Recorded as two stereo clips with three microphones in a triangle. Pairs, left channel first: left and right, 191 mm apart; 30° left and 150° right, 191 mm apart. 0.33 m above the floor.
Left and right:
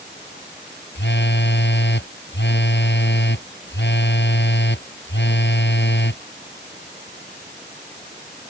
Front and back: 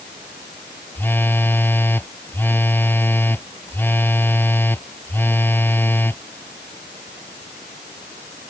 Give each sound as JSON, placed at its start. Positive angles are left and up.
{"t": 0.9, "sound": "a phone buzzing", "azimuth_deg": 110}